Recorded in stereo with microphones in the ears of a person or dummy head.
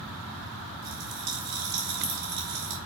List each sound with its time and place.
0.8 s a pop: 60° right (ahead or behind), 2 m